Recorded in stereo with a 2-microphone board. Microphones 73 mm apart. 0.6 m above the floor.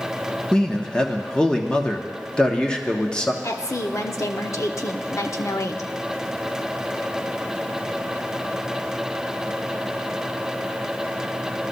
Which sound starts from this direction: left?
A woman speaking, at 3.4 s.